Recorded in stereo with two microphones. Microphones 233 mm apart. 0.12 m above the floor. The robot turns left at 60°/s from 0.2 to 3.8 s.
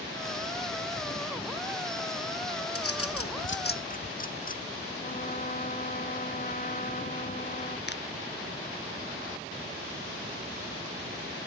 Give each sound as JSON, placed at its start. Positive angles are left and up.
{"t": 2.8, "sound": "a bird", "side_deg": 75}
{"t": 5.0, "sound": "a trumpet", "side_deg": 35}
{"t": 7.9, "sound": "a finger snap", "side_deg": 50}